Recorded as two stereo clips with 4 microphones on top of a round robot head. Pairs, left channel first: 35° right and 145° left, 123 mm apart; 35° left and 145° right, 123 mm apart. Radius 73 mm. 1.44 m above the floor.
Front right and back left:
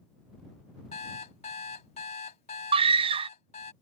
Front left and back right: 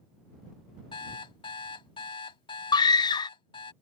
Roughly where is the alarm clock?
Ahead.